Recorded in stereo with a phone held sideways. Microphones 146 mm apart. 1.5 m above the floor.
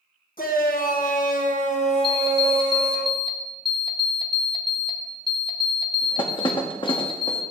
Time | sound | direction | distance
0.4 | a shout | 80° left | 1.6 m
2.0 | an alarm clock | 35° left (ahead or behind) | 1.0 m